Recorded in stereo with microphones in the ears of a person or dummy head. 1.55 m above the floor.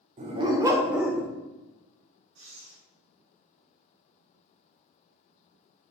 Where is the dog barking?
35° right (ahead or behind), 1.7 m; by 1.3 s 5° left (ahead or behind), 1.9 m.